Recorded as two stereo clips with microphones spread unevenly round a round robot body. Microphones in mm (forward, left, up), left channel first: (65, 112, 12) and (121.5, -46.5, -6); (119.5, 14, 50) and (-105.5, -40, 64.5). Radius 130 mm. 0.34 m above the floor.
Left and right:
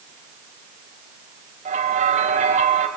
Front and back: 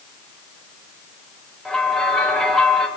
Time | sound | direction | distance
1.6 | a bell | 70° right | 1.9 m